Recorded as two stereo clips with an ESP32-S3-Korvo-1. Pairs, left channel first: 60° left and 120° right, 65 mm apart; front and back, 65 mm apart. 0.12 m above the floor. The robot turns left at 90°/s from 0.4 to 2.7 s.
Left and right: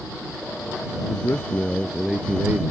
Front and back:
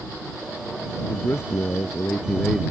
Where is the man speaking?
50° left; by 2.7 s 95° right.